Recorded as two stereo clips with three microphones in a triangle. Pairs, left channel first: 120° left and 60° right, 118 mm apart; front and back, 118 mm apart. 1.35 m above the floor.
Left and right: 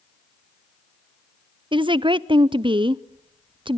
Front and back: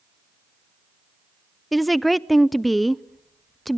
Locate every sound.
1.7 s a woman speaking: 90° right, 0.5 m